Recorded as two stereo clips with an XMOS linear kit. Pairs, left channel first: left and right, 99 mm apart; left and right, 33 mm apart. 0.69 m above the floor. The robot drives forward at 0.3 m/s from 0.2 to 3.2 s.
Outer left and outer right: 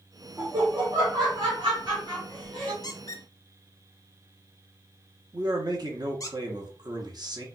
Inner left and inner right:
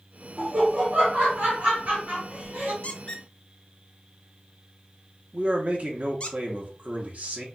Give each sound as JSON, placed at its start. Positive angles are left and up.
{"t": 0.4, "sound": "laughter", "side_deg": -55, "distance_m": 1.4}
{"t": 2.8, "sound": "a squeak", "side_deg": 45, "distance_m": 0.5}
{"t": 5.3, "sound": "a man speaking", "side_deg": -45, "distance_m": 0.9}